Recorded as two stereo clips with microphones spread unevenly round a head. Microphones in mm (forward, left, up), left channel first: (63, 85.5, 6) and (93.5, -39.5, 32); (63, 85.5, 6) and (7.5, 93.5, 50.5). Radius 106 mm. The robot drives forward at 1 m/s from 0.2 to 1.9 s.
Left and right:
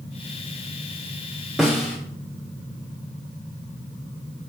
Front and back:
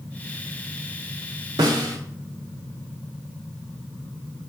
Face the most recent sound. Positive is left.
turn(degrees=-170)